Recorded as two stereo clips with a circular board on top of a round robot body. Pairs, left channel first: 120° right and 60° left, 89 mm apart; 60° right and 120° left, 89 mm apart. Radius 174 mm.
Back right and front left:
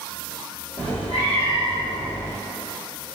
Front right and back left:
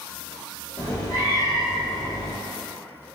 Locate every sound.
0.8 s a cat meowing: 110° right, 0.8 m